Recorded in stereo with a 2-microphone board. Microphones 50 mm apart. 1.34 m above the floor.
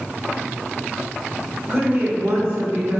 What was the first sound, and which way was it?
A woman speaking, 45° right (ahead or behind).